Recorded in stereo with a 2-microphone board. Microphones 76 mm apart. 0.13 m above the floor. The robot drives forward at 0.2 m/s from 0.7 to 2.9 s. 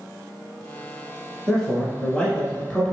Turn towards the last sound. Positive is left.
turn(degrees=10)  # may be behind; listen again after turning